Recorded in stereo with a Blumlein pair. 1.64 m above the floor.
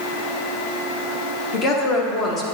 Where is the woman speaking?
25° left, 1.8 m.